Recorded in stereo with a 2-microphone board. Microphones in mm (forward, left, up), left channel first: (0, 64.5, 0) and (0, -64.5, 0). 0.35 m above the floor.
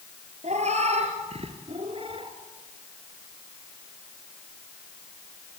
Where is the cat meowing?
60° right (ahead or behind), 3.5 m; by 2.3 s 40° right (ahead or behind), 2.5 m.